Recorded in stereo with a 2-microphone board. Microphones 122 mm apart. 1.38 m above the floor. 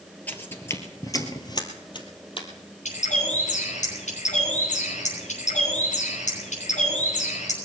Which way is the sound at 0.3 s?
15° left (ahead or behind).